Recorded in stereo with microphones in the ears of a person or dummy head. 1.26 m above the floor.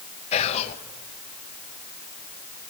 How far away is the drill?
No drill in this recording.